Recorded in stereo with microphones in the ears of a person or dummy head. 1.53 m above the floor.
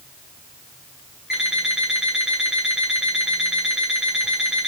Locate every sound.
1.3 s an alarm clock: centre (ahead or behind), 1.7 m